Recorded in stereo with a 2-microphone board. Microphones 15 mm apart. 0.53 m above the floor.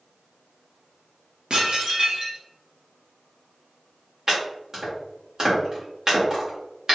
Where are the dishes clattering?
50° right (ahead or behind), 0.8 m.